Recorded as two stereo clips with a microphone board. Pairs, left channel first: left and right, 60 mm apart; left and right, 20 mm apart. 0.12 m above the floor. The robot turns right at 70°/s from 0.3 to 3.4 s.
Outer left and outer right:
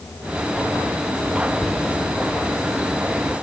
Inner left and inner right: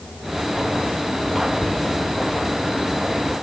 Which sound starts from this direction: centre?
Whispering, at 1.6 s.